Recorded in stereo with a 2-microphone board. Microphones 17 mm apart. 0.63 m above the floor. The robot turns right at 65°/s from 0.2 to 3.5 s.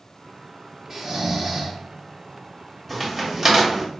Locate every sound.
0.9 s snoring: 100° right, 1.0 m; by 1.8 s 45° right, 1.0 m
2.9 s a crack: 10° right (ahead or behind), 1.2 m; by 3.9 s 30° right (ahead or behind), 1.2 m